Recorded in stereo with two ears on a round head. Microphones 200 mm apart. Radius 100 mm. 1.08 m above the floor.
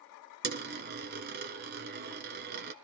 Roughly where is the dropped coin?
Right.